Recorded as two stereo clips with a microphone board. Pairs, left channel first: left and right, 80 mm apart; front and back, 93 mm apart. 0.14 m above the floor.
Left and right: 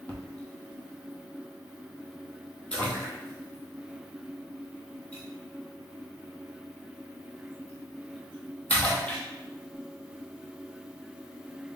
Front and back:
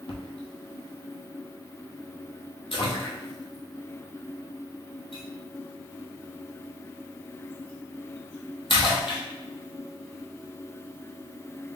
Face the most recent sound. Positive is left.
turn(degrees=15)